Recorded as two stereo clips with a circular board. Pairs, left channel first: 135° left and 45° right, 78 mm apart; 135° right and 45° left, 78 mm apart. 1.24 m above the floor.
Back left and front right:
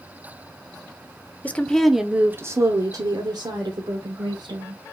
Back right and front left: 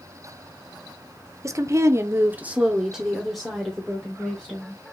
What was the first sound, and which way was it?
A woman speaking, 75° left.